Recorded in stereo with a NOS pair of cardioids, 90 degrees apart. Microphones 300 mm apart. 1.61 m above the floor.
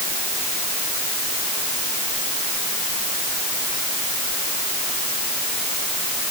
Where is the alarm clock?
I don't hear an alarm clock.